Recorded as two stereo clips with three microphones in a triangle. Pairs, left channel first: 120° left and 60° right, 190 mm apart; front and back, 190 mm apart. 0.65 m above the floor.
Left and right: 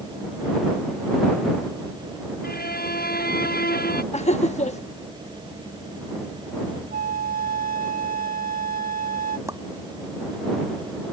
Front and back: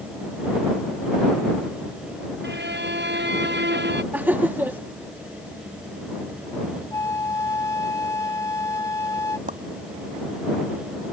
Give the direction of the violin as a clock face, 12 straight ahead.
7 o'clock.